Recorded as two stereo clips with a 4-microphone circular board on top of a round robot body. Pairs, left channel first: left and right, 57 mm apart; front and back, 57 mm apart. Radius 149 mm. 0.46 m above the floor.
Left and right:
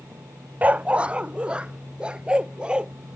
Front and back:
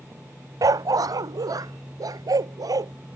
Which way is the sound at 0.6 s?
155° right.